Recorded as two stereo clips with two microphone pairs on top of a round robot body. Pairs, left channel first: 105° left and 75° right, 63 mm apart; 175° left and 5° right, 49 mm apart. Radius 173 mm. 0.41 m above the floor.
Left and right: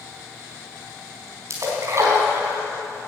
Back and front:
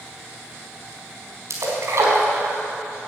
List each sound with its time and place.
1.5 s a splash: 30° right, 4 m